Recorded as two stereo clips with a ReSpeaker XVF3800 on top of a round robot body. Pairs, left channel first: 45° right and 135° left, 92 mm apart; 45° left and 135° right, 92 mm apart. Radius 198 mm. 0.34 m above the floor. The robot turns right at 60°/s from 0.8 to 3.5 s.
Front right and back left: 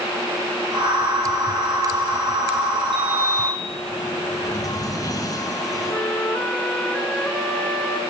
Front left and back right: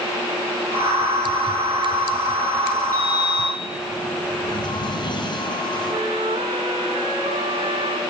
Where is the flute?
120° right, 3.5 m.